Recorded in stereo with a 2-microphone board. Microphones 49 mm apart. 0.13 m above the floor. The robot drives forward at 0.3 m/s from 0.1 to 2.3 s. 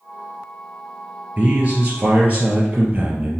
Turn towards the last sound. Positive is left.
turn(degrees=-25)  # may be behind; listen again after turning